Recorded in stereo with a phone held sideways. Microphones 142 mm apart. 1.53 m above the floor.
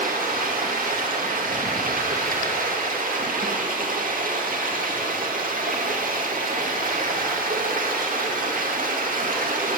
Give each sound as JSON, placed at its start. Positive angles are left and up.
{"t": 0.0, "sound": "running water", "side_deg": -70, "distance_m": 2.0}